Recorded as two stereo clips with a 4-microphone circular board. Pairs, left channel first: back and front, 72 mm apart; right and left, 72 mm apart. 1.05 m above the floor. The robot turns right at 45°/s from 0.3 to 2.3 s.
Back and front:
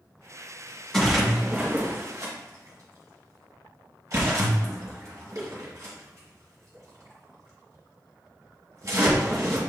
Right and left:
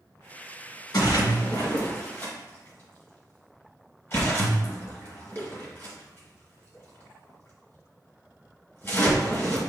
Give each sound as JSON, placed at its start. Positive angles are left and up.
{"t": 0.9, "sound": "a splash", "azimuth_deg": -95, "distance_m": 1.4}